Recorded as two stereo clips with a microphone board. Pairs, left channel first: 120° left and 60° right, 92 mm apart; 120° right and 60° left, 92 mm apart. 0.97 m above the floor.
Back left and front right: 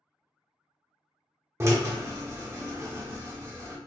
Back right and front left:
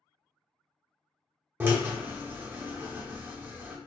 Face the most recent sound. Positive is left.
turn(degrees=-5)